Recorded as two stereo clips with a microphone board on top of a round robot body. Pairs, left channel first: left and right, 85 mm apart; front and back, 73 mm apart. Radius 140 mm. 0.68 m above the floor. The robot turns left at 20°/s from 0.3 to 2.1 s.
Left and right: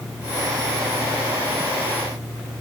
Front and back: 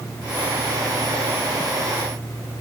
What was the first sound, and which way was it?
Only background noise.